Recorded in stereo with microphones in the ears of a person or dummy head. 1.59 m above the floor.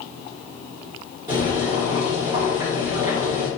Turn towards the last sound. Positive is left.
turn(degrees=-20)  # may be behind; listen again after turning